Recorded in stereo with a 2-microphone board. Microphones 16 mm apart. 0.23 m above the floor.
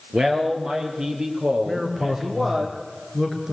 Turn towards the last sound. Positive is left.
turn(degrees=-35)  # may be behind; listen again after turning